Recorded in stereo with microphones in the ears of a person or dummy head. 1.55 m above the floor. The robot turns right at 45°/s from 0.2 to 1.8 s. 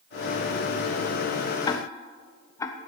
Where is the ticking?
25° left (ahead or behind), 0.6 m; by 2.8 s 20° left (ahead or behind), 0.6 m.